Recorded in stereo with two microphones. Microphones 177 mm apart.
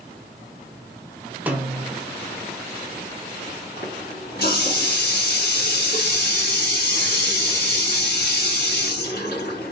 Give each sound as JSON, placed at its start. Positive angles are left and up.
{"t": 1.5, "sound": "a snare drum", "side_deg": -10, "distance_m": 0.6}
{"t": 3.8, "sound": "a running tap", "side_deg": 65, "distance_m": 1.9}